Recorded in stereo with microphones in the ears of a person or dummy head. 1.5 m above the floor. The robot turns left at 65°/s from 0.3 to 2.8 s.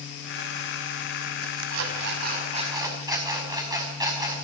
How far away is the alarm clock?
About 5.5 m.